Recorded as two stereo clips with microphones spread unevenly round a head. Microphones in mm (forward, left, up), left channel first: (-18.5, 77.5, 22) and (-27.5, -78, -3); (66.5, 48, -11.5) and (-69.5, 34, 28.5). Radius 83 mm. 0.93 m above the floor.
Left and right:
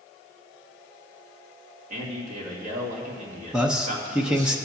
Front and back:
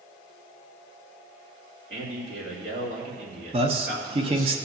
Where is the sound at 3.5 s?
150° right, 0.9 m.